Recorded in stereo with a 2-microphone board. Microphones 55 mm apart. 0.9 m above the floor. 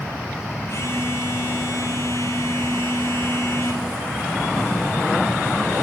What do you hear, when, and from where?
0.7 s a phone buzzing: 60° left (ahead or behind), 2.5 m